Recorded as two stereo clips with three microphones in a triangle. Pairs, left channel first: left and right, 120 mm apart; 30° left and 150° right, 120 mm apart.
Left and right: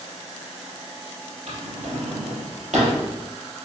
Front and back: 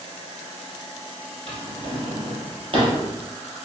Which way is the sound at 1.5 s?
105° right.